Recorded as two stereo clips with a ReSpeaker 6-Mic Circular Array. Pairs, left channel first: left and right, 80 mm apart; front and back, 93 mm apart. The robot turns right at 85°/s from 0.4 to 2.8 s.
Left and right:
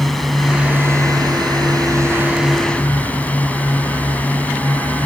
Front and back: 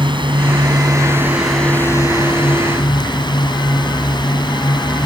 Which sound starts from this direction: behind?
A drone, at 0.0 s.